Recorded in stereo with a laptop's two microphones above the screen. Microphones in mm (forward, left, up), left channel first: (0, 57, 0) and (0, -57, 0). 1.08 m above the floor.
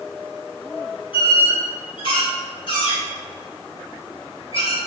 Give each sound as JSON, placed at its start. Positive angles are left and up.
{"t": 1.1, "sound": "a squeak", "side_deg": 50, "distance_m": 1.0}